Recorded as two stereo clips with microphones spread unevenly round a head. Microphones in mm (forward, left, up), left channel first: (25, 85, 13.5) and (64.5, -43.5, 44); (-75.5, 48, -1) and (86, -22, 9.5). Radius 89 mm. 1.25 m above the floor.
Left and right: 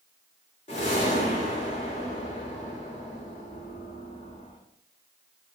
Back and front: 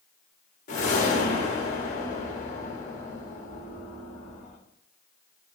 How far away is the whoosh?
About 0.8 m.